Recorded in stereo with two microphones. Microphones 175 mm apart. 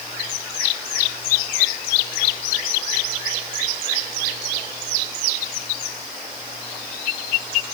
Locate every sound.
Only background noise.